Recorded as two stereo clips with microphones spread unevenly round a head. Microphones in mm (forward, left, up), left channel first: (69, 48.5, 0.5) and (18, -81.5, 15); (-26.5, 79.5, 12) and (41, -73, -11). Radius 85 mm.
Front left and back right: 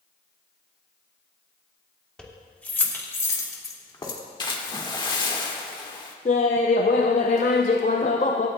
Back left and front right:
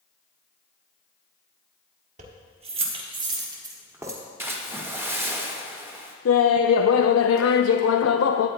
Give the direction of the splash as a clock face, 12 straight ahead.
12 o'clock.